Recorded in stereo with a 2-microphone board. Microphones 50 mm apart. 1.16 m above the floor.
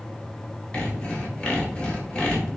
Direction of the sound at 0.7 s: 20° left (ahead or behind).